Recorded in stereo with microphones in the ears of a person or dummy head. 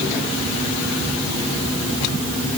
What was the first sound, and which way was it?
Only background noise.